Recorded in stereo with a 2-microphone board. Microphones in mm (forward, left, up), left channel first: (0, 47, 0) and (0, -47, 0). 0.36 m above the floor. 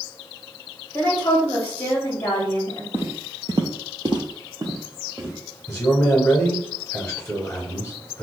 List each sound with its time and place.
0.9 s a woman speaking: 25° left (ahead or behind), 1.9 m
2.9 s footsteps: 25° right (ahead or behind), 0.8 m
5.7 s a man speaking: 20° left (ahead or behind), 0.9 m